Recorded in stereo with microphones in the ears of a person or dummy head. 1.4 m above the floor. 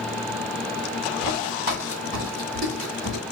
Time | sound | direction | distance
1.2 | footsteps | 45° right (ahead or behind) | 2 m